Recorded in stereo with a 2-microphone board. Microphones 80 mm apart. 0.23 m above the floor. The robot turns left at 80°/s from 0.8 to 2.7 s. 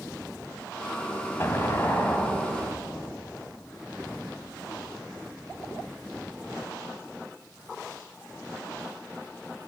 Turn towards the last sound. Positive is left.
turn(degrees=-5)